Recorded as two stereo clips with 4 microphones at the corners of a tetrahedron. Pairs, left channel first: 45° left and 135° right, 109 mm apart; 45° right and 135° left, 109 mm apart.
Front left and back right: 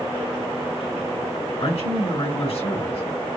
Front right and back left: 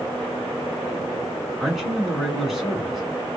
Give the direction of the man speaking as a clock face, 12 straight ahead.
10 o'clock.